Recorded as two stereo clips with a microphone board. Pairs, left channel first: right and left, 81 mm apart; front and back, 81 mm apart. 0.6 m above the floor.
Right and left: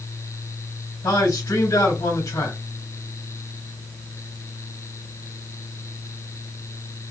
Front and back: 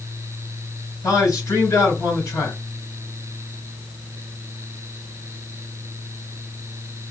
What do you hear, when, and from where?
1.0 s a man speaking: 40° right, 3 m